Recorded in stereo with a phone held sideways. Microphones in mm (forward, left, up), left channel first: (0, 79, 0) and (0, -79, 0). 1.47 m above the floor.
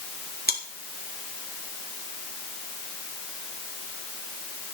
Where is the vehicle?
I don't hear a vehicle.